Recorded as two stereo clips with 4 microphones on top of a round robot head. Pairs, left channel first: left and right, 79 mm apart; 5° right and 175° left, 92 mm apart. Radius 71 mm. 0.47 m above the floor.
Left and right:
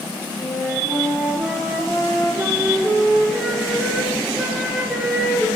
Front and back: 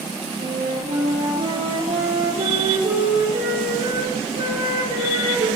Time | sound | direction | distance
0.4 | a flute | straight behind | 5 m